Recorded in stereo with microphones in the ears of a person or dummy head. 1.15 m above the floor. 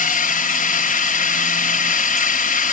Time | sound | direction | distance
0.0 | a drone | 40° left (ahead or behind) | ?